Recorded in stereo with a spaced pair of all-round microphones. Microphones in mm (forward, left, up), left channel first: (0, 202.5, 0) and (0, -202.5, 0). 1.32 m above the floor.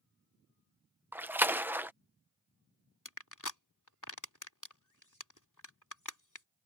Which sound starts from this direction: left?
Crushing, at 3.0 s.